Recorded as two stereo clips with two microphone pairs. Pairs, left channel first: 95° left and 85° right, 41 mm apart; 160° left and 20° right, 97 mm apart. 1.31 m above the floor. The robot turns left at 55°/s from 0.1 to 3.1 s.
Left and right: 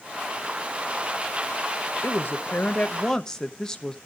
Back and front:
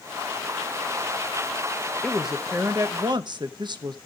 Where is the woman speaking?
80° left, 1.0 m; by 4.0 s 20° left, 1.0 m.